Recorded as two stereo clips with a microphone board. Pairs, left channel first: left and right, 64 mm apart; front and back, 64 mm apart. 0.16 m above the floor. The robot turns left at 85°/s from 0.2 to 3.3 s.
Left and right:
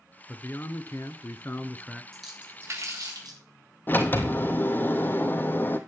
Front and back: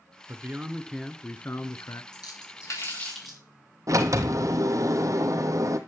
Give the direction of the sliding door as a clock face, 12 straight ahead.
7 o'clock.